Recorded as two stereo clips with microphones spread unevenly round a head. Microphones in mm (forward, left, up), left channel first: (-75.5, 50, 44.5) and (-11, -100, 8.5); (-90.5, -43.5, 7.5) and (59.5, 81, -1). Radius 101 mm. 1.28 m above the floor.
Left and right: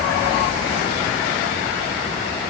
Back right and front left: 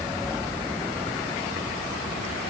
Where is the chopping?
I don't hear chopping.